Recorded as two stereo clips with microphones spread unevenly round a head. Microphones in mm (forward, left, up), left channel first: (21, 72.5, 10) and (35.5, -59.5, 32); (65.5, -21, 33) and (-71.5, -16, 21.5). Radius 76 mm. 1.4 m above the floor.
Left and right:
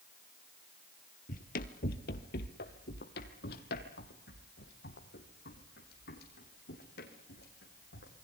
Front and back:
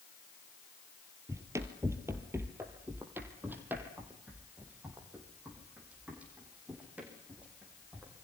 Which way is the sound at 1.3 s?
105° left.